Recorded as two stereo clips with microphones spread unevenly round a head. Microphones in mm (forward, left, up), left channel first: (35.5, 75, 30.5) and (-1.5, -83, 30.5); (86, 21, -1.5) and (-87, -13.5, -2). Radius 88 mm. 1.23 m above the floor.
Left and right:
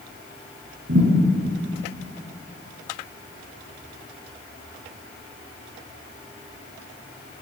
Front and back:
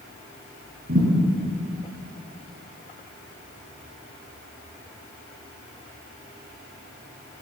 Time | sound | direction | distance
0.9 | a thud | 125° right | 5 m